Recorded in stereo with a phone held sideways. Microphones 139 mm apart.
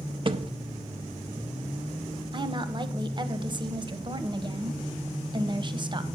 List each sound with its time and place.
0.2 s a thud: 40° right (ahead or behind), 0.5 m
2.3 s a woman speaking: 35° right (ahead or behind), 0.8 m